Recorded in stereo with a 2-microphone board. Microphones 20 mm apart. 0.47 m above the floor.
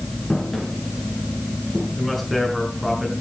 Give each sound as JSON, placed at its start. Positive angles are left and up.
{"t": 0.3, "sound": "footsteps", "side_deg": 5, "distance_m": 8.0}
{"t": 2.0, "sound": "a man speaking", "side_deg": -5, "distance_m": 5.5}